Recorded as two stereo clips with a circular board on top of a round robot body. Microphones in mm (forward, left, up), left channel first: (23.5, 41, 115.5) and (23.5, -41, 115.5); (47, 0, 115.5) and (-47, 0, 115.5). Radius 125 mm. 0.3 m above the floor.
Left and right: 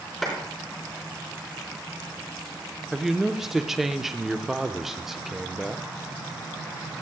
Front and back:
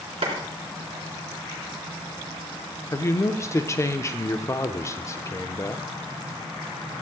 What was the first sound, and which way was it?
A clap, straight behind.